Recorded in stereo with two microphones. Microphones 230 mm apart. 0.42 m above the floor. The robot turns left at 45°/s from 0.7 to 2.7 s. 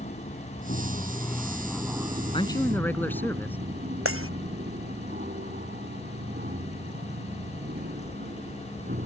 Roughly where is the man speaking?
Left.